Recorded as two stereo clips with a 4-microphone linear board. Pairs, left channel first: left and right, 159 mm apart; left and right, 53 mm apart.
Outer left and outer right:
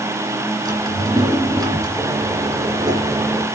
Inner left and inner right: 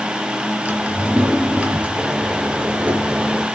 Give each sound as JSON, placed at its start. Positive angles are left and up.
{"t": 0.7, "sound": "a drawer", "side_deg": -25, "distance_m": 2.5}
{"t": 2.0, "sound": "a microwave", "side_deg": -20, "distance_m": 1.8}